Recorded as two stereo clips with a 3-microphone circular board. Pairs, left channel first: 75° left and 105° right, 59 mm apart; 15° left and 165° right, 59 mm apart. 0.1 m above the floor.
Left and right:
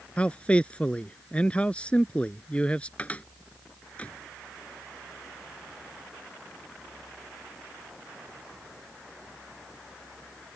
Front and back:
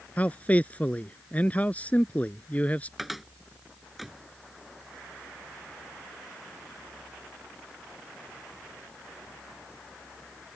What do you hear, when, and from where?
0.2 s a man speaking: 35° left
3.0 s a cupboard door: 110° left